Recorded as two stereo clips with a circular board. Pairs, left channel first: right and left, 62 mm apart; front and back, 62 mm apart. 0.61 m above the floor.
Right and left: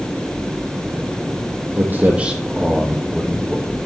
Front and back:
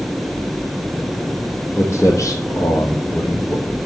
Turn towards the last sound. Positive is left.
turn(degrees=-15)